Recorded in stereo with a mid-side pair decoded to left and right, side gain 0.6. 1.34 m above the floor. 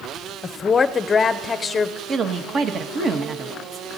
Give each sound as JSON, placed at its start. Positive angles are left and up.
{"t": 0.4, "sound": "a woman speaking", "azimuth_deg": 30, "distance_m": 0.6}
{"t": 2.1, "sound": "a woman speaking", "azimuth_deg": -40, "distance_m": 1.1}